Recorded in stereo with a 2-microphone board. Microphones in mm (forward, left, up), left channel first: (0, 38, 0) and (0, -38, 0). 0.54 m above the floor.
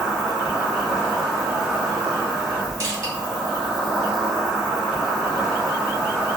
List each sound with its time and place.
0.0 s an insect: 5° right (ahead or behind), 1.8 m
2.8 s crushing: 40° right (ahead or behind), 1.5 m